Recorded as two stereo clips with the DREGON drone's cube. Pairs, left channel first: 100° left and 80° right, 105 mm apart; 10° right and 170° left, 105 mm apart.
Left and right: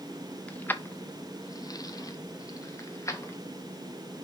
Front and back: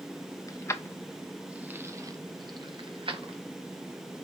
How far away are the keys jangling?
About 0.7 m.